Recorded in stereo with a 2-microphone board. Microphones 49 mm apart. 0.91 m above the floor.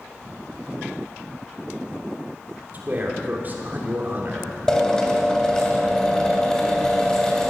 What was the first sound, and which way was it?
A man speaking, 35° right (ahead or behind).